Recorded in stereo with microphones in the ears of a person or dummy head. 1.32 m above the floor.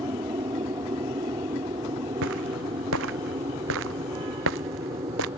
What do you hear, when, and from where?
0.0 s an aircraft: 20° right (ahead or behind)
2.2 s footsteps: 75° right (ahead or behind); by 5.3 s 85° right